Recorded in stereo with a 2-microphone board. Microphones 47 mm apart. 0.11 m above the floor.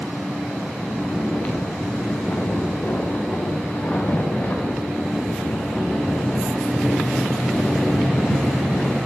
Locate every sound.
0.8 s snoring: 40° left (ahead or behind), 3.5 m